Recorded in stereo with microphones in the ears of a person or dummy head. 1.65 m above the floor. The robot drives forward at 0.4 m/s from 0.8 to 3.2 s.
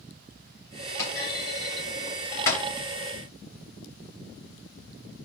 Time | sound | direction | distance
1.0 | a clunk | 25° left (ahead or behind) | 3 m